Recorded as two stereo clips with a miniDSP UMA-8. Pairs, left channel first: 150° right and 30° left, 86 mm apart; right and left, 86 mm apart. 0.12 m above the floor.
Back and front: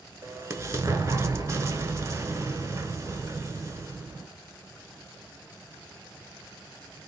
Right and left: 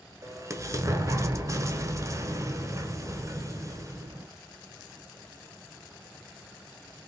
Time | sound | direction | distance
0.2 | an explosion | 65° left | 0.7 m